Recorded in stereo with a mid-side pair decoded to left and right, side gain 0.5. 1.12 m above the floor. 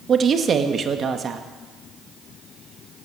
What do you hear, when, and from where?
0.1 s a woman speaking: 45° right, 1.8 m